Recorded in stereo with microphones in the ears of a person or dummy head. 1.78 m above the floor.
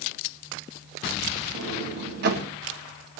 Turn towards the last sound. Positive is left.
turn(degrees=-50)  # may be behind; listen again after turning